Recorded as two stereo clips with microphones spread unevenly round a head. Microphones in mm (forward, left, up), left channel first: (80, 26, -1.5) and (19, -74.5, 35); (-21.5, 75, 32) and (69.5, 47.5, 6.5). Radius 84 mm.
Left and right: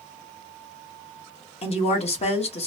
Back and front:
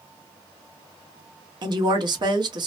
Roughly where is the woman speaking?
Ahead left.